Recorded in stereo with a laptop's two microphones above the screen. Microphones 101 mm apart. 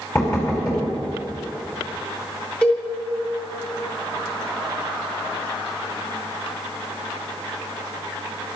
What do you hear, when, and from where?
0.1 s knocking: 30° left (ahead or behind), 4.5 m
2.6 s a cowbell: 15° left (ahead or behind), 4 m